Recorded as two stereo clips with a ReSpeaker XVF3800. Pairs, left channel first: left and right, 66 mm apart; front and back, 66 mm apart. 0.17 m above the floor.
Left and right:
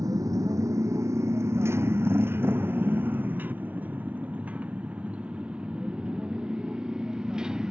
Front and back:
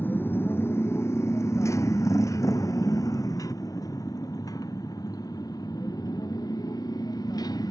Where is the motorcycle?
60° right; by 7.7 s 10° right.